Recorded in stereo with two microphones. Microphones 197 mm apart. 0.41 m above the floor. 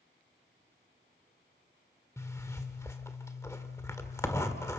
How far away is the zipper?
About 1.6 m.